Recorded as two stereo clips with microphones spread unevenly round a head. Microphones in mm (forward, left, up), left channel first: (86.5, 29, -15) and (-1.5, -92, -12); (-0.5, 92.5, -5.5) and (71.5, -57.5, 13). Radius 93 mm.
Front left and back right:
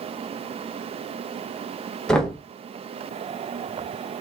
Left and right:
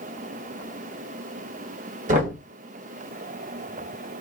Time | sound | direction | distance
2.1 | knocking | 30° right | 0.9 m